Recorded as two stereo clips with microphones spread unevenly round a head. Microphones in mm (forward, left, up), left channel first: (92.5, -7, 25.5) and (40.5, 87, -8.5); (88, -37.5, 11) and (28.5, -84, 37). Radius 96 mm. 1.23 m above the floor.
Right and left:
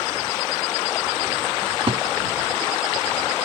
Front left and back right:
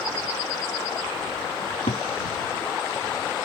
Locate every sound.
1.6 s a cupboard door: 75° left